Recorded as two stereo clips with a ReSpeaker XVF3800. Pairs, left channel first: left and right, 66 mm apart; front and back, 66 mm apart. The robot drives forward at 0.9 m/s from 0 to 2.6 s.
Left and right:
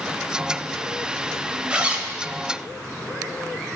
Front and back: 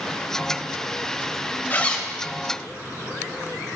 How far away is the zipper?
About 0.6 m.